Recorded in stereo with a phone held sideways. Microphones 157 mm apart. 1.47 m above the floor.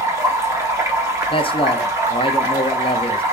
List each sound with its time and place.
0.0 s running water: 20° right (ahead or behind), 1.0 m
1.3 s a man speaking: 35° left (ahead or behind), 0.5 m